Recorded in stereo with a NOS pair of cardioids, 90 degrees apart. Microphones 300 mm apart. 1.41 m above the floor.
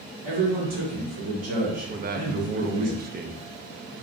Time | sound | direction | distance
0.2 | a man speaking | 45° right | 1.3 m
1.9 | a man speaking | 30° right | 0.5 m